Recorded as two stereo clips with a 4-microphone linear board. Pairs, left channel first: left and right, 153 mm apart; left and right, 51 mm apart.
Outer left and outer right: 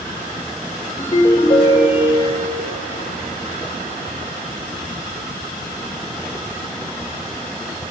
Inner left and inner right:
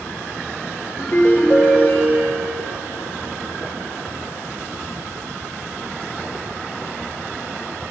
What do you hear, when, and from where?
1.0 s a ringtone: 40° left (ahead or behind), 1.1 m